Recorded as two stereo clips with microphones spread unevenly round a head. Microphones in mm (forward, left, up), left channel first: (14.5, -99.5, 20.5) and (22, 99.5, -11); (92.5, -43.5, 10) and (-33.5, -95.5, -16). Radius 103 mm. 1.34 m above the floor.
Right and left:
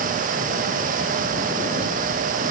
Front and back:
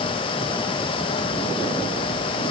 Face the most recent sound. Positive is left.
No sound to turn to.